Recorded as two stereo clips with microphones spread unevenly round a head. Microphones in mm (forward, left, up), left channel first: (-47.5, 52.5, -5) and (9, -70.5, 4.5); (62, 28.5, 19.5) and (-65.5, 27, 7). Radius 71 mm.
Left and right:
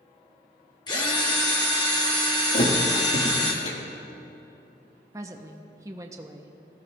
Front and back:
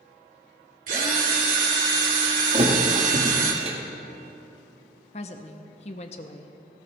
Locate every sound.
0.9 s a drill: 170° left, 1.9 m
2.5 s a thud: 145° left, 1.6 m
5.1 s a woman speaking: 5° right, 0.7 m